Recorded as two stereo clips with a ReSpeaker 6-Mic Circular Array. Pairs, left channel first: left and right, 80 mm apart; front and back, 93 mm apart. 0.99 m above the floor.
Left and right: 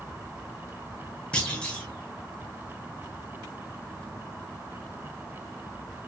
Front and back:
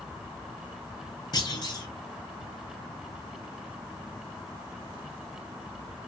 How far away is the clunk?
About 0.9 m.